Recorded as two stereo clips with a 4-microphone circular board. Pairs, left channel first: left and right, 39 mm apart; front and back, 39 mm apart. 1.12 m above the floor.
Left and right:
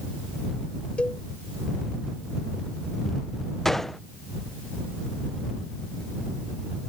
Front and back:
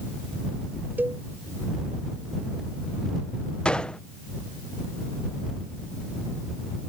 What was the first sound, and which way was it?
A cowbell, 150° left.